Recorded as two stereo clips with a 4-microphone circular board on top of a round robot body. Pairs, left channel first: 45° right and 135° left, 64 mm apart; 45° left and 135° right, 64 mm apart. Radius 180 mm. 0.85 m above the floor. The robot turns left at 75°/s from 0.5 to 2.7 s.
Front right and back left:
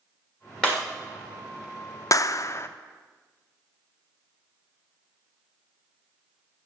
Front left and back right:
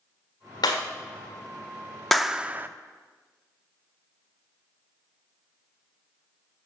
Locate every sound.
0.6 s breaking glass: 40° left, 1.1 m; by 0.8 s 25° left, 1.1 m
2.1 s a clap: 45° right, 0.7 m; by 2.7 s 85° right, 0.7 m